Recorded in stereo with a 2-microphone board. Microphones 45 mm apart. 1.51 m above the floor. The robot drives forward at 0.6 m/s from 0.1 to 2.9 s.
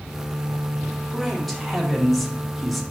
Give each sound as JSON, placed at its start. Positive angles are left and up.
{"t": 1.1, "sound": "a man speaking", "side_deg": 0, "distance_m": 2.5}